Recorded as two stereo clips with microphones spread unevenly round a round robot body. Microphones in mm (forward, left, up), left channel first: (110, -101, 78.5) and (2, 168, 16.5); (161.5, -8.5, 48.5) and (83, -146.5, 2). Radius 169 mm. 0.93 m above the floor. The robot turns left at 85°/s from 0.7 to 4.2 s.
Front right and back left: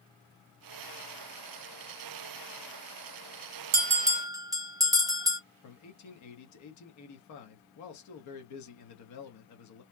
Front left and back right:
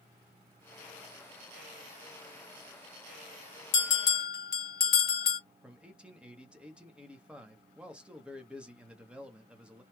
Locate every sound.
3.7 s a bell: 75° left, 0.9 m; by 5.4 s 35° left, 0.9 m
5.6 s a man speaking: 50° right, 1.1 m